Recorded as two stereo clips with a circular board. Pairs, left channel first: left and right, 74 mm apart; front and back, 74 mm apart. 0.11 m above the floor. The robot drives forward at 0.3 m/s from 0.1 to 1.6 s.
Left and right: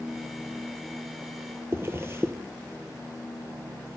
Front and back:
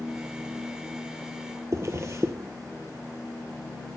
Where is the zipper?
140° right, 1.1 m.